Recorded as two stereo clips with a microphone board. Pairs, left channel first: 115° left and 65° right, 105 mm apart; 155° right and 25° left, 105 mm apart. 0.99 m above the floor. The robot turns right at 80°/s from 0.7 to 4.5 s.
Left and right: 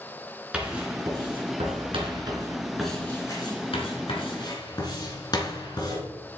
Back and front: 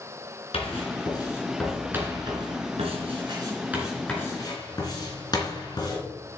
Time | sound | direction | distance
0.5 | writing | 145° right | 3.5 m